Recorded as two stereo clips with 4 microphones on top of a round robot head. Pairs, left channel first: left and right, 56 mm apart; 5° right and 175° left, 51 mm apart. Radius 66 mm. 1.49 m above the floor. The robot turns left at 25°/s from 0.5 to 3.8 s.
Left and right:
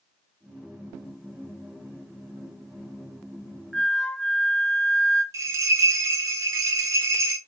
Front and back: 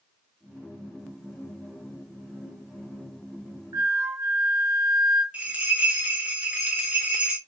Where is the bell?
110° right, 0.5 m.